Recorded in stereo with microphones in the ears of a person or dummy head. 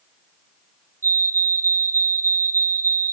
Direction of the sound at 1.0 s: 15° right (ahead or behind).